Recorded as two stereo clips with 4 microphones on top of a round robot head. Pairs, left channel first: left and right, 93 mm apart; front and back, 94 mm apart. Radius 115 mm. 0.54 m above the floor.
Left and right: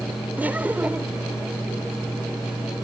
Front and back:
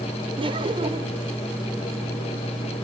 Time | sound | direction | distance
0.4 | laughter | 160° right | ?